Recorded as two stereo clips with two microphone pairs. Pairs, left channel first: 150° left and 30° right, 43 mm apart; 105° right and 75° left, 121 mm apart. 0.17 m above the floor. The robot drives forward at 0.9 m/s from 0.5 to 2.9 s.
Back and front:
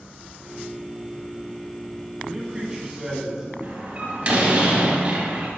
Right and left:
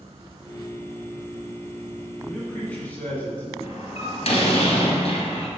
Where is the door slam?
85° right, 1.8 m.